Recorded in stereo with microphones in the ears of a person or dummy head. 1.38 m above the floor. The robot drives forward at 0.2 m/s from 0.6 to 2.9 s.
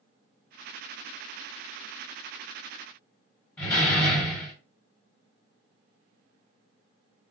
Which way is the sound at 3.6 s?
10° left (ahead or behind).